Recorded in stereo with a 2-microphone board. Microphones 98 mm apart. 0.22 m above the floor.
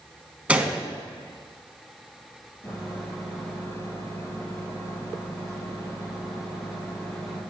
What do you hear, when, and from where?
0.5 s a gunshot: 15° right (ahead or behind), 0.9 m
2.6 s a microwave: 30° left (ahead or behind), 3 m